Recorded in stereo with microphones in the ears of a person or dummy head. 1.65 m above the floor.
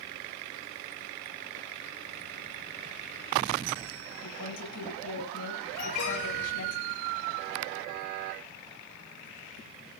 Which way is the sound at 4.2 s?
85° left.